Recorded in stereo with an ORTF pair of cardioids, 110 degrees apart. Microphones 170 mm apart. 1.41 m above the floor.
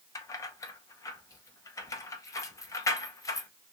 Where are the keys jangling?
20° left, 0.8 m.